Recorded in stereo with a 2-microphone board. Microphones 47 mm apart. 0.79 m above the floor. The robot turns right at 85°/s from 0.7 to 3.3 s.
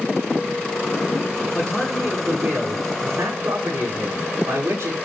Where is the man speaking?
145° left, 8 m; by 5.0 s 65° right, 8 m.